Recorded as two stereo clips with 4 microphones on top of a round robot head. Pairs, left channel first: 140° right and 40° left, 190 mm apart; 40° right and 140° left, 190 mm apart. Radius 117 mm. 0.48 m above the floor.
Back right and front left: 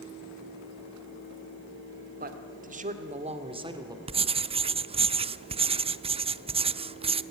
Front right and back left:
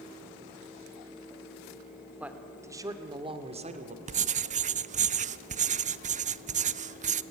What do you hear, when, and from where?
2.2 s a man speaking: 55° left, 2 m; by 4.0 s 105° left, 2 m
4.1 s writing: 95° left, 0.6 m